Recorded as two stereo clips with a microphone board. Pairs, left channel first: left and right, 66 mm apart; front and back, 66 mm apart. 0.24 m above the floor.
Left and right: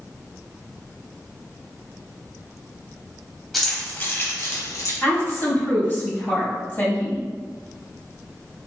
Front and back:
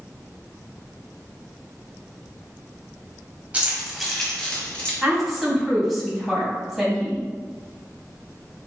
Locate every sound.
3.5 s keys jangling: straight behind, 1.0 m; by 4.9 s 70° left, 1.7 m
5.0 s a woman speaking: 100° left, 1.6 m